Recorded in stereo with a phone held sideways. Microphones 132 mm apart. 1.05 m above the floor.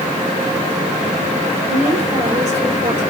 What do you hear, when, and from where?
1.7 s a woman speaking: 60° right (ahead or behind), 4 m